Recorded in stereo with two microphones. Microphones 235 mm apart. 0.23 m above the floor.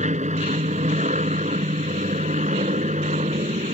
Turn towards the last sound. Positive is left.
turn(degrees=-30)  # may be behind; listen again after turning